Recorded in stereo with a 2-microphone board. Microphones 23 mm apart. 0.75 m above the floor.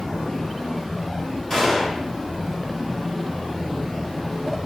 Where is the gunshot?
20° left (ahead or behind), 1.8 m.